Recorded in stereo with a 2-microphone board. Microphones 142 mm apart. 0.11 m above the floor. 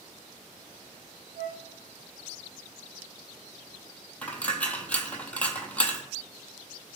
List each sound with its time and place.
1.4 s a flute: 65° right (ahead or behind), 1.3 m
4.2 s a dropped coin: 10° left (ahead or behind), 0.5 m